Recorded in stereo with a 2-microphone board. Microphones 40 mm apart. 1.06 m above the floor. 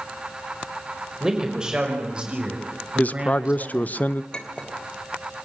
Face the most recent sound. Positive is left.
turn(degrees=25)  # may be behind; listen again after turning